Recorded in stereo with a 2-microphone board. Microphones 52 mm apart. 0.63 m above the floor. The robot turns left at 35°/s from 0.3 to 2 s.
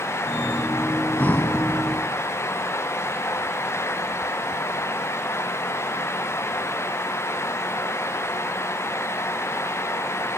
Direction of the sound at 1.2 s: 30° left (ahead or behind).